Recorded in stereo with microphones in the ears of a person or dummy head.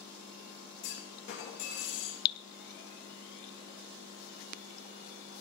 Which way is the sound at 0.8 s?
50° left (ahead or behind).